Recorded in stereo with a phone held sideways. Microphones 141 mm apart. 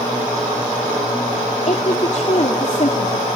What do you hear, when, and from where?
1.7 s a woman speaking: 55° left (ahead or behind), 2.5 m